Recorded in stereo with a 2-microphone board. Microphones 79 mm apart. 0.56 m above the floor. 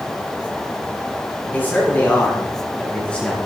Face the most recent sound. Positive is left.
turn(degrees=15)  # may be behind; listen again after turning